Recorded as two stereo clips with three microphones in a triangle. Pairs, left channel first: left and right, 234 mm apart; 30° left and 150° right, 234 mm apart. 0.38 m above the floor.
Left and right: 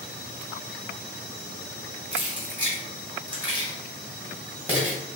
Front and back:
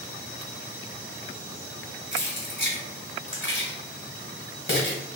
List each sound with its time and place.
2.1 s keys jangling: 10° right, 1.4 m